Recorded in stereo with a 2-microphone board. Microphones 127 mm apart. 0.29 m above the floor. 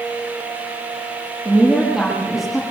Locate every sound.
1.4 s a woman speaking: centre (ahead or behind), 7 m